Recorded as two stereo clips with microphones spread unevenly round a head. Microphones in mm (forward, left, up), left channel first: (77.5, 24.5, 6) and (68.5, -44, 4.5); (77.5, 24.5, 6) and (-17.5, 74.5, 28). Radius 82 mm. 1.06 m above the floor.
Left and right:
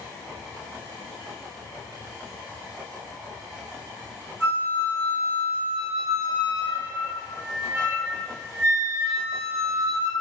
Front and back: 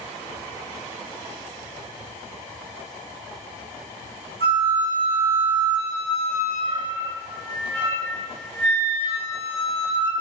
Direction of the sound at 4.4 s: 145° left.